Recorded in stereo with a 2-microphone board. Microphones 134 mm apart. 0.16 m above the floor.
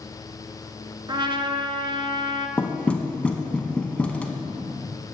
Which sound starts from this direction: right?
A trumpet, at 1.1 s.